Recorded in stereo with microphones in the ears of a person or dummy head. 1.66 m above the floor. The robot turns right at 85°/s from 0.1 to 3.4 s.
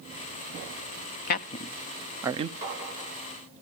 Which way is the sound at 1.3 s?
55° left (ahead or behind).